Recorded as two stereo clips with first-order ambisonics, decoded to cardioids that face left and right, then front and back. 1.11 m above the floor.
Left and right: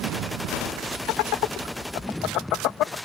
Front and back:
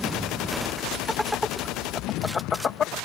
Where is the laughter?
90° left; by 3.0 s 55° left.